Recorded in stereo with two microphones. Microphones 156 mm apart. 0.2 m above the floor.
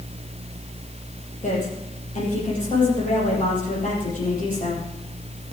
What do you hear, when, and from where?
1.4 s a woman speaking: 55° left (ahead or behind), 6.5 m